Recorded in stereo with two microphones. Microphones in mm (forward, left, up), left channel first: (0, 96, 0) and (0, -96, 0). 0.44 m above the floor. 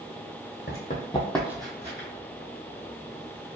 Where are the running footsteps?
55° left (ahead or behind), 1.1 m; by 2.1 s 40° right (ahead or behind), 1.3 m.